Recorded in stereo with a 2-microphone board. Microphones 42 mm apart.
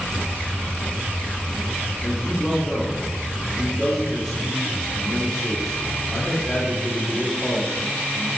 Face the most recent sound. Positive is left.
turn(degrees=15)  # may be behind; listen again after turning